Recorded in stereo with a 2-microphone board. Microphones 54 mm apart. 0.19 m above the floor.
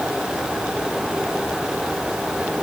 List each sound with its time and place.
Only background noise.